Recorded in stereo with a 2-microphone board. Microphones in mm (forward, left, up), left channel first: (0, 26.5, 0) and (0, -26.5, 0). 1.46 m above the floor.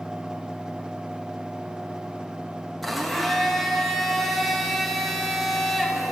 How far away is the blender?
About 1.4 m.